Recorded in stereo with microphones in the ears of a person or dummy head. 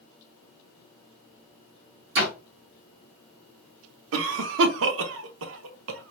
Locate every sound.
2.1 s a door slam: 55° right (ahead or behind), 1.2 m
4.1 s a cough: 75° right (ahead or behind), 0.7 m